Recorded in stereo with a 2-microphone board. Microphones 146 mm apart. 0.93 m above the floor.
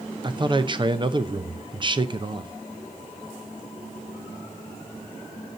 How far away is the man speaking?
About 0.6 m.